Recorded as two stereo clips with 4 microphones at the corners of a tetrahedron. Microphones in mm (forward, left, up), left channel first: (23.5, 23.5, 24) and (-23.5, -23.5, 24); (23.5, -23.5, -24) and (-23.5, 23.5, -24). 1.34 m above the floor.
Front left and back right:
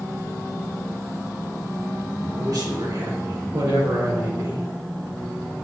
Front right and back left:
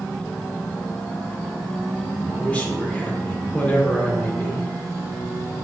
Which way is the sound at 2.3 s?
115° right.